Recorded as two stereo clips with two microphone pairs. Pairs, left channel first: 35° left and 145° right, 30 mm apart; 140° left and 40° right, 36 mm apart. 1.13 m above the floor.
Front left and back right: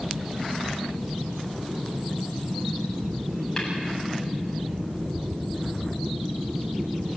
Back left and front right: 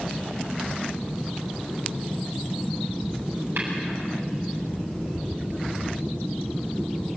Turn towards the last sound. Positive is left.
turn(degrees=-45)